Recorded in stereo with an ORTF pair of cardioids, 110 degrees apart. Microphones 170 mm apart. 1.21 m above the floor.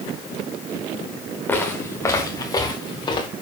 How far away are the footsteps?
About 5 m.